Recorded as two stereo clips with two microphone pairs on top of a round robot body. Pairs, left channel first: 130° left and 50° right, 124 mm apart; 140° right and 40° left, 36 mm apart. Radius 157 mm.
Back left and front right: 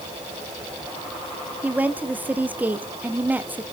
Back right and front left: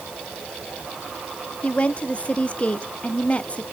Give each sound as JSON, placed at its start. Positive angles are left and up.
{"t": 1.6, "sound": "a woman speaking", "azimuth_deg": -130, "distance_m": 1.7}